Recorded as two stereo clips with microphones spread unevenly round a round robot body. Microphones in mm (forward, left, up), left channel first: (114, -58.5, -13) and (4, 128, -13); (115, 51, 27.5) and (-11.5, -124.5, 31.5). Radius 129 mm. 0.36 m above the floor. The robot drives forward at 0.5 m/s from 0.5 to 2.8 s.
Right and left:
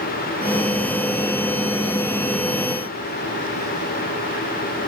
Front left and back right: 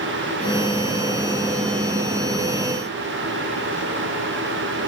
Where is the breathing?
No breathing in this recording.